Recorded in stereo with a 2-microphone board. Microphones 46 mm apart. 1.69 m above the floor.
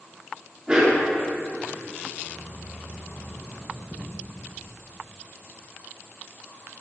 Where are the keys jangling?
35° right (ahead or behind), 1.7 m.